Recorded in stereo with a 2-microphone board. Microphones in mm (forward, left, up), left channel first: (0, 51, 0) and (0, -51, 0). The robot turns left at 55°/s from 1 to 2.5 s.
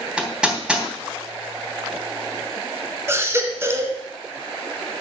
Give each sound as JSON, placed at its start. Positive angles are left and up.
{"t": 0.2, "sound": "hammering", "side_deg": -10, "distance_m": 3.0}
{"t": 3.1, "sound": "a baby crying", "side_deg": -25, "distance_m": 1.5}